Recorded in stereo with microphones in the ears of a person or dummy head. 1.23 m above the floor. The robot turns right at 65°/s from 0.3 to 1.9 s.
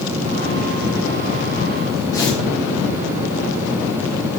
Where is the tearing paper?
15° left (ahead or behind), 0.7 m.